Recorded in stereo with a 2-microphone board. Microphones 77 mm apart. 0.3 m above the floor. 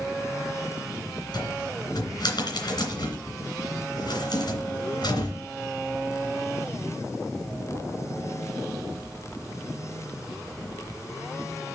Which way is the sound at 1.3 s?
65° left (ahead or behind).